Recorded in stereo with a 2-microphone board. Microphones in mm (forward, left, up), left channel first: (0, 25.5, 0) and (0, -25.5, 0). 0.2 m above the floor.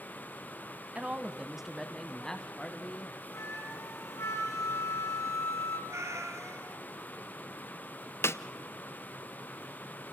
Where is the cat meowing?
75° right (ahead or behind), 3 m.